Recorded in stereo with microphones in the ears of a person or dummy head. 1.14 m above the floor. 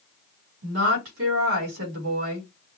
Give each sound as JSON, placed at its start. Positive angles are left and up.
{"t": 0.6, "sound": "a woman speaking", "side_deg": -80, "distance_m": 3.5}